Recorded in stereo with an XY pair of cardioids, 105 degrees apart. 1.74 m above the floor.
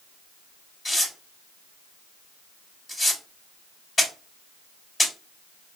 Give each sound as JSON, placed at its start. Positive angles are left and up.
{"t": 0.8, "sound": "tearing paper", "azimuth_deg": 20, "distance_m": 2.5}